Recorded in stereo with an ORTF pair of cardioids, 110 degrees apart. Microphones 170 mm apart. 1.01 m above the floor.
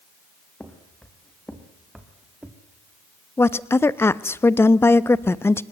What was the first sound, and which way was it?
Footsteps, 5° left.